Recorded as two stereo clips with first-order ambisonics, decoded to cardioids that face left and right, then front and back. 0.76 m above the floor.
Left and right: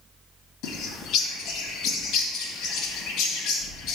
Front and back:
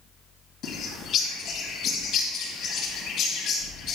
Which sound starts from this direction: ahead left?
A bird, at 0.6 s.